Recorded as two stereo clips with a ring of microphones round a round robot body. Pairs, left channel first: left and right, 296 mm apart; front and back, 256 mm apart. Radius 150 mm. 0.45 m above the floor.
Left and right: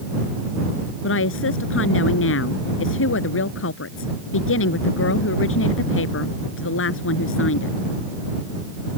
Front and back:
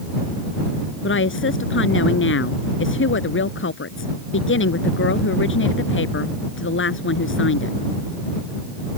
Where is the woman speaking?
40° left.